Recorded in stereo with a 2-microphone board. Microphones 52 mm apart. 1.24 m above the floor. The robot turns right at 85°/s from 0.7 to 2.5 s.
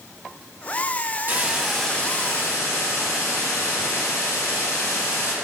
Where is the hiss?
40° right, 1.1 m; by 5.3 s 65° left, 1.1 m.